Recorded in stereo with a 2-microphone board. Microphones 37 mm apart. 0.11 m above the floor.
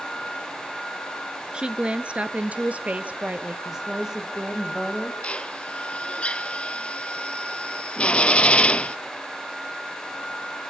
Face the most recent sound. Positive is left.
turn(degrees=30)  # may be behind; listen again after turning